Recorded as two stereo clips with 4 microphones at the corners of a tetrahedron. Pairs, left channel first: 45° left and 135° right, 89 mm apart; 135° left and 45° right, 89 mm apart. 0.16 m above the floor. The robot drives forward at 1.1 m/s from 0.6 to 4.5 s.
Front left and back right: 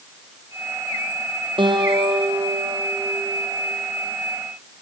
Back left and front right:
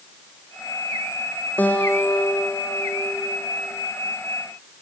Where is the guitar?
155° right, 3.5 m; by 3.7 s 165° right, 6 m.